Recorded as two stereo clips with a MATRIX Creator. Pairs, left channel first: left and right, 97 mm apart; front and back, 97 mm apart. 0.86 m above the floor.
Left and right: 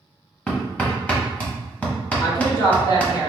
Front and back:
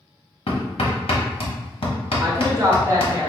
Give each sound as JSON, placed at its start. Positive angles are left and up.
{"t": 0.5, "sound": "hammering", "azimuth_deg": 15, "distance_m": 0.9}
{"t": 2.2, "sound": "a woman speaking", "azimuth_deg": 130, "distance_m": 1.1}